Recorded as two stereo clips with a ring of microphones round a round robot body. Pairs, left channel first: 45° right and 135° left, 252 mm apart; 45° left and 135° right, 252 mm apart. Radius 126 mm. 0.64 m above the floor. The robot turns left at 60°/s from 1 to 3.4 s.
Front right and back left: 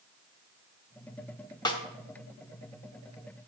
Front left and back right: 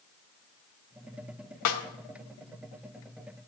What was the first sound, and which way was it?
A snare drum, 30° left.